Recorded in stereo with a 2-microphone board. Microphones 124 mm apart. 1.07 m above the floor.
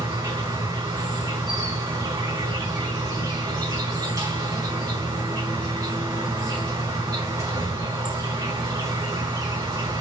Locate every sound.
0.0 s an insect: 30° right (ahead or behind), 4 m